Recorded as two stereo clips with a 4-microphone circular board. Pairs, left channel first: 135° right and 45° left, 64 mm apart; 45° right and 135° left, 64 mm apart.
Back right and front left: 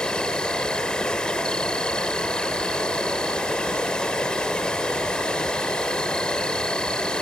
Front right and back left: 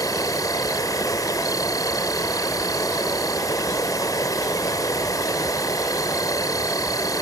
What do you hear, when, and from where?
0.0 s an insect: 60° right